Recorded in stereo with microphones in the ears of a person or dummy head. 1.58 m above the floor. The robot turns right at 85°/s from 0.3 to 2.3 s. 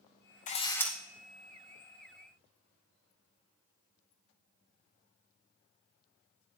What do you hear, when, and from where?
0.5 s a camera shutter: 145° left, 0.6 m; by 0.9 s 175° right, 0.6 m